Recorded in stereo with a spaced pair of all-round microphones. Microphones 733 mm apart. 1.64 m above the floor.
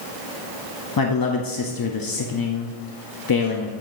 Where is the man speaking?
35° left (ahead or behind), 0.5 m.